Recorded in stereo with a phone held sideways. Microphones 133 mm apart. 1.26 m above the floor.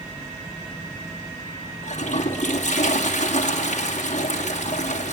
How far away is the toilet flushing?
About 2.5 m.